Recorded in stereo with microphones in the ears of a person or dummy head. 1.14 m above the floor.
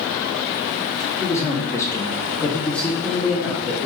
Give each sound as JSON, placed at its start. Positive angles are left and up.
{"t": 1.2, "sound": "a man speaking", "side_deg": 15, "distance_m": 0.8}